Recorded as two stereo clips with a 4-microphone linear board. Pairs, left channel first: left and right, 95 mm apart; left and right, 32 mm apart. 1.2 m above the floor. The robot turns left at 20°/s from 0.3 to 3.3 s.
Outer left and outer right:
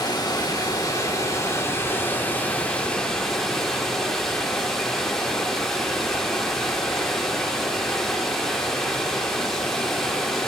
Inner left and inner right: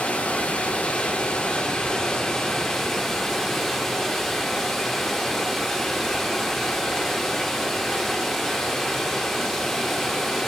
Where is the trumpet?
I don't hear a trumpet.